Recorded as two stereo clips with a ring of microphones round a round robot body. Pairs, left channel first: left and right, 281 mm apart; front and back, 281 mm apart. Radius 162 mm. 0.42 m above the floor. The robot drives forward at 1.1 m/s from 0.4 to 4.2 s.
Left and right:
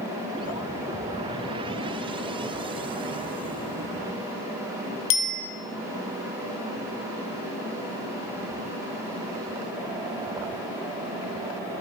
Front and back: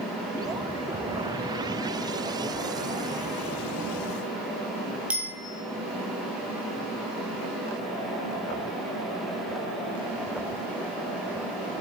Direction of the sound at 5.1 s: 95° left.